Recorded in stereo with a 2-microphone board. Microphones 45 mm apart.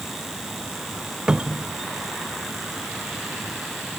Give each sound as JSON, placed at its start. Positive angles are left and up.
{"t": 1.3, "sound": "a cupboard door", "side_deg": -20, "distance_m": 0.7}